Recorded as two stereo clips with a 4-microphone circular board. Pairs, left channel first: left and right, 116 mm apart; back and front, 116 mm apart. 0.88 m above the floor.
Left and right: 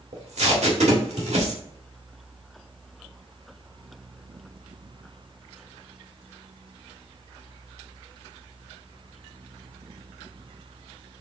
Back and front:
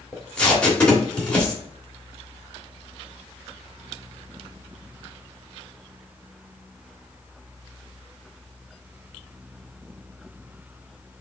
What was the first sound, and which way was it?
Tape being pulled, 100° right.